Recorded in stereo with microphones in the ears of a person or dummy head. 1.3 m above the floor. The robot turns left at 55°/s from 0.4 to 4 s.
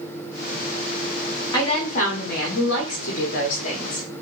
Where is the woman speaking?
160° left, 0.6 m; by 4.2 s 25° left, 0.6 m.